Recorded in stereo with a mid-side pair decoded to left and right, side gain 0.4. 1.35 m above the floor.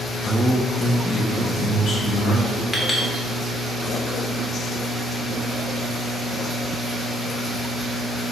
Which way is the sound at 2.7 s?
20° left.